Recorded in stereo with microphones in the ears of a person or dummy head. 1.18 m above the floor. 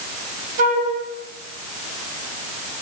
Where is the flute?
55° right (ahead or behind), 8 m.